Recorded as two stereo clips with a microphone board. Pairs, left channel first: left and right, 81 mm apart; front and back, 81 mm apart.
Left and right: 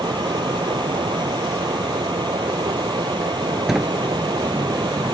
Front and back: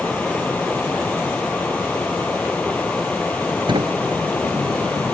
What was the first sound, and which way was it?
Running water, 75° right.